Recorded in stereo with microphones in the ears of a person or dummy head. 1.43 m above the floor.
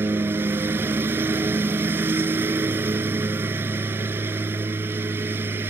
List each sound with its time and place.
0.0 s a lawn mower: 15° right (ahead or behind)